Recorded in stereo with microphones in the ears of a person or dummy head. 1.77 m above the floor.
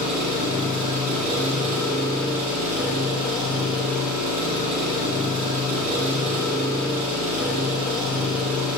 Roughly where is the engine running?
Centre.